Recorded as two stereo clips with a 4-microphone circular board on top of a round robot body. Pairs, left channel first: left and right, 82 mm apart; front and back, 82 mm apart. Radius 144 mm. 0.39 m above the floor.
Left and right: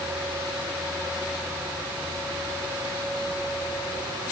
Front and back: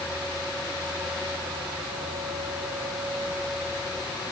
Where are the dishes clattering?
No dishes clattering in this recording.